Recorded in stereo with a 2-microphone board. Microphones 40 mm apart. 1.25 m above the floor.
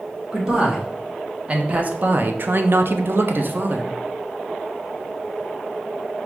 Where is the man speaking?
20° right (ahead or behind), 1.4 m; by 3.9 s 45° right (ahead or behind), 0.7 m.